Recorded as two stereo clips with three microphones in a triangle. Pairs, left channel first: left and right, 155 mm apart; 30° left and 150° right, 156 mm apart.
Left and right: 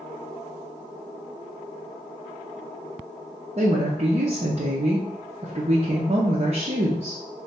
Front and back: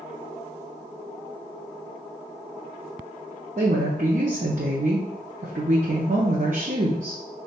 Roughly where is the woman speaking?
Behind right.